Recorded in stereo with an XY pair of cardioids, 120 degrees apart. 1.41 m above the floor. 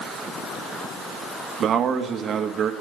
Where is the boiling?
No boiling in this recording.